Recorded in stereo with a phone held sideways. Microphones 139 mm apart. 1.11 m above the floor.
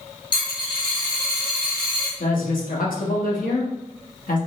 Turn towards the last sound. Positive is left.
turn(degrees=85)